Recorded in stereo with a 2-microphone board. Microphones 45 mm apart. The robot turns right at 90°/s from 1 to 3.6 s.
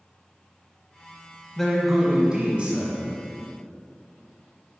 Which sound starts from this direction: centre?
A man speaking, at 1.6 s.